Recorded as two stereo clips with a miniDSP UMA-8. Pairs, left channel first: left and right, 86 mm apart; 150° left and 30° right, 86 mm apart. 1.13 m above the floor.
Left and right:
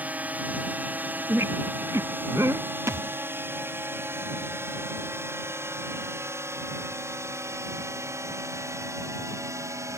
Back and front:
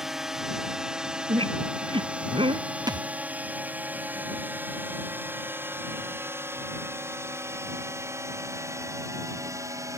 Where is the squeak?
30° right.